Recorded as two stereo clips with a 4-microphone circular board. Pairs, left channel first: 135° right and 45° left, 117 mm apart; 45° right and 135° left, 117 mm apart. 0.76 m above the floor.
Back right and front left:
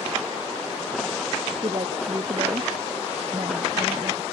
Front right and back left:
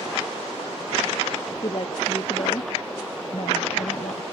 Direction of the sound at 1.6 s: Straight ahead.